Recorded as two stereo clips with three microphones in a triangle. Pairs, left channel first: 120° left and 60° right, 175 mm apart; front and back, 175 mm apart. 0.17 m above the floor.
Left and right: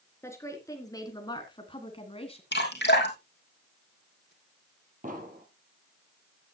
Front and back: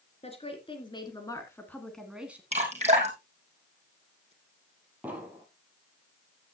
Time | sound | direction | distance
0.2 | a woman speaking | 50° left | 3 m
2.5 | dripping | 130° left | 2.5 m
5.0 | an explosion | 100° right | 3 m